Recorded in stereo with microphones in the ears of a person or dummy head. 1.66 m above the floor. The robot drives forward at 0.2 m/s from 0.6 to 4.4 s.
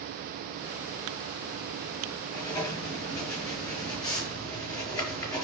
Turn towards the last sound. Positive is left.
turn(degrees=20)  # may be behind; listen again after turning